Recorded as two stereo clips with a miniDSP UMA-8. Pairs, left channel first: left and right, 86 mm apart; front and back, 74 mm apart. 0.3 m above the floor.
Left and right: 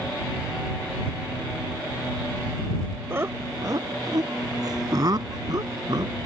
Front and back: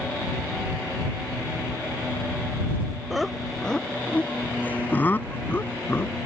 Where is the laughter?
100° right; by 6.2 s 55° right.